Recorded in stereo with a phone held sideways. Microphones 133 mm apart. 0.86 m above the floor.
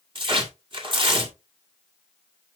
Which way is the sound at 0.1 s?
40° right (ahead or behind).